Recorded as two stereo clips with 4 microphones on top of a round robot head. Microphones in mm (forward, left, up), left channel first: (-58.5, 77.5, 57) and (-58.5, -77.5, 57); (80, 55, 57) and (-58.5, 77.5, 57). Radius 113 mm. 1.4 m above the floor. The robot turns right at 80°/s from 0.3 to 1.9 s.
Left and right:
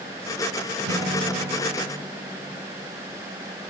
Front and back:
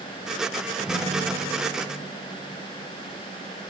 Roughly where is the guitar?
Right.